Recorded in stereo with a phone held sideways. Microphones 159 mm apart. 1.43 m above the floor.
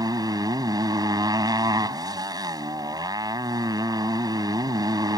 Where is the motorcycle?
25° right (ahead or behind).